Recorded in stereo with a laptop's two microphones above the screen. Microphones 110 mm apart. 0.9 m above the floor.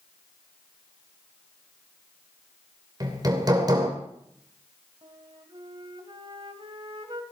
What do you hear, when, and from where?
3.0 s hammering: 35° right (ahead or behind), 2.5 m
5.0 s a flute: 45° right (ahead or behind), 1.7 m